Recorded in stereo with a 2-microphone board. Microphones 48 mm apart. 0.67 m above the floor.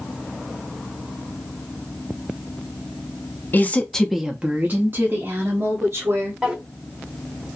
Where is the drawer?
15° right (ahead or behind), 1.2 m.